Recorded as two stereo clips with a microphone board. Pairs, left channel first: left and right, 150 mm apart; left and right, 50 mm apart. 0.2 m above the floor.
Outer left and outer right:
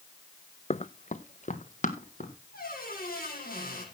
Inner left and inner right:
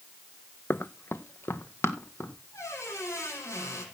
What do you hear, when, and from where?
0.7 s running footsteps: 45° left (ahead or behind), 0.6 m; by 2.3 s 55° left (ahead or behind), 2.5 m
2.5 s a squeak: 80° left, 6.5 m